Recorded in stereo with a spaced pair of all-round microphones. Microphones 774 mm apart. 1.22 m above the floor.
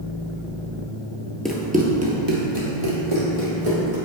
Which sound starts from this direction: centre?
Running footsteps, at 1.4 s.